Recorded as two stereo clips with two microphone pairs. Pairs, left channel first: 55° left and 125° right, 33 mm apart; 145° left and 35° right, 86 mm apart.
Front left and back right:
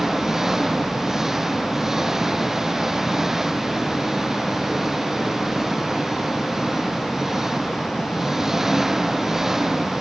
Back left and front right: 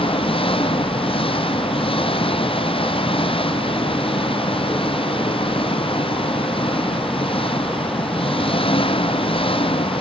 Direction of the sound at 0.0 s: 160° left.